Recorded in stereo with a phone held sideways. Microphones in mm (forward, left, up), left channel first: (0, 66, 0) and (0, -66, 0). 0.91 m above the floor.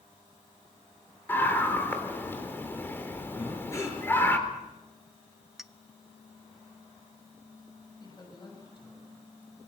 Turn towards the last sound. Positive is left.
turn(degrees=35)  # may be behind; listen again after turning